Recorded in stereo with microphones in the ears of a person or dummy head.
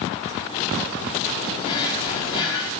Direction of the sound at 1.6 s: 30° left (ahead or behind).